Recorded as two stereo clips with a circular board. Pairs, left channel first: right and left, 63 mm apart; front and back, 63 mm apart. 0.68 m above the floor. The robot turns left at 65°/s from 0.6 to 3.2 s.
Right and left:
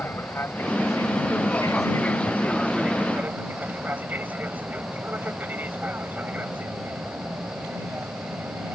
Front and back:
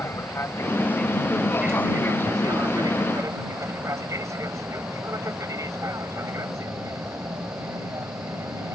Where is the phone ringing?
I don't hear a phone ringing.